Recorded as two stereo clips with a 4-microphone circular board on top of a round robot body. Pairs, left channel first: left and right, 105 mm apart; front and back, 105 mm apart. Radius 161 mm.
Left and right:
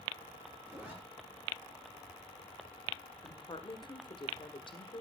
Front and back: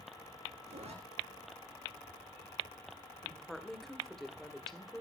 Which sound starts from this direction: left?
A woman speaking, at 3.2 s.